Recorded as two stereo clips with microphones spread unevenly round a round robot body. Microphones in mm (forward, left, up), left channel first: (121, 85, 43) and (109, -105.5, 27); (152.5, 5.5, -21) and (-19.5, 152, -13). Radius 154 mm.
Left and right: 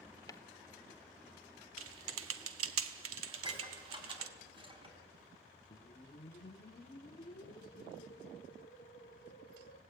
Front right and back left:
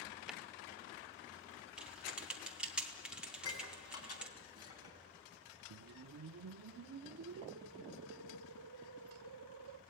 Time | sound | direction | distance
0.3 | footsteps | 60° left | 0.8 m
1.8 | typing on a keyboard | 135° right | 0.5 m
3.3 | dishes clattering | 30° right | 4.5 m
5.7 | a whoosh | 145° left | 0.5 m